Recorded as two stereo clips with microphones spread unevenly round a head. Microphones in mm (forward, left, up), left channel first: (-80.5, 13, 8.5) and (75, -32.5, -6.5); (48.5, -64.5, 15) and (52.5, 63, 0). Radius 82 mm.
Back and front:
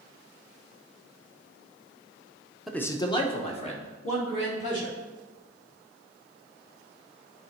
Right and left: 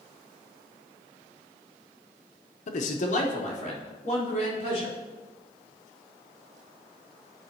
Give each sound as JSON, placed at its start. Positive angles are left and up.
{"t": 2.7, "sound": "a man speaking", "azimuth_deg": -100, "distance_m": 0.7}